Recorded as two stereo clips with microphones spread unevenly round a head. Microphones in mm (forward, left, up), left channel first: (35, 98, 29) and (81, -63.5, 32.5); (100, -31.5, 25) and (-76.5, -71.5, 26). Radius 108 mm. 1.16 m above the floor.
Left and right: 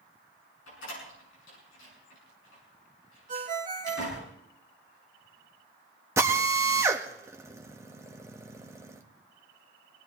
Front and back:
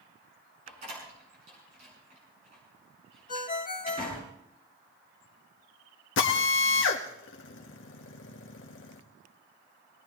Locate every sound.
0.7 s a door slam: 130° left, 7.5 m
3.3 s a ringtone: 30° right, 1.6 m
6.2 s a drill: straight ahead, 1.4 m